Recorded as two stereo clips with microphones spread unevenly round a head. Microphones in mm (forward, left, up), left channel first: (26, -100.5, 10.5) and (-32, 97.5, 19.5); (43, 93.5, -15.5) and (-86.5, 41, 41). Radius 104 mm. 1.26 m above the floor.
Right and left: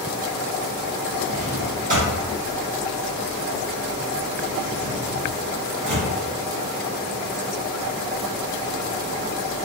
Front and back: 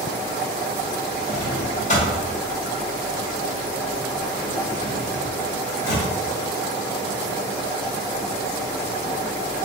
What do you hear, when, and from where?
1.3 s a drawer: 65° left, 1.0 m